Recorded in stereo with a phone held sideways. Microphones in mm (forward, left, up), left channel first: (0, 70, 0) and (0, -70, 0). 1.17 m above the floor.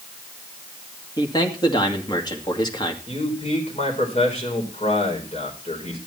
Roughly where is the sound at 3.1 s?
Left.